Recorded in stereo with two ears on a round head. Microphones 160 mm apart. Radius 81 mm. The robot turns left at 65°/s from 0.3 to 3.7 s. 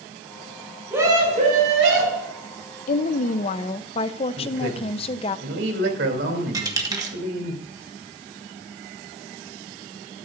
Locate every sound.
0.9 s a scream: 10° right, 5.5 m; by 2.3 s 100° right, 5.5 m
2.9 s a woman speaking: 100° left, 0.6 m; by 5.4 s 50° left, 0.6 m
4.4 s a man speaking: 65° right (ahead or behind), 2.5 m
6.5 s a dropped coin: 20° right (ahead or behind), 1.6 m